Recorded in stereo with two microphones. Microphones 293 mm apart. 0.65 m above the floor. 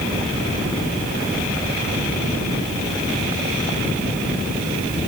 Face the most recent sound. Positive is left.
No sound to turn to.